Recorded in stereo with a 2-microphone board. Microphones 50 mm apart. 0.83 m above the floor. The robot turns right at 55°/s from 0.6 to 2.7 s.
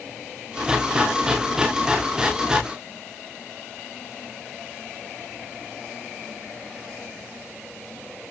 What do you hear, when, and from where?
Only background noise.